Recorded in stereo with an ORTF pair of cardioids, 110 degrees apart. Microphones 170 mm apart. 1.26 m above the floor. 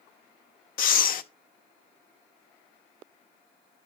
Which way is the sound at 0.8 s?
55° left.